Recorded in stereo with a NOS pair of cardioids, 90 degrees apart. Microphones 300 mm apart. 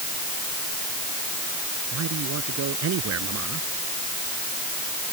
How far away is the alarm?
I don't hear an alarm.